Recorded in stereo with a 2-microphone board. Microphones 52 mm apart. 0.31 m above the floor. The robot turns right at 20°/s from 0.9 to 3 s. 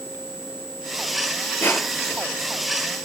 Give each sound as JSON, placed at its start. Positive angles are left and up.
{"t": 1.6, "sound": "crushing", "side_deg": 45, "distance_m": 4.0}